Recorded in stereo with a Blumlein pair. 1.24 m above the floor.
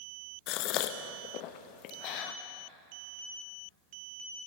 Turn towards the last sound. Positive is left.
turn(degrees=40)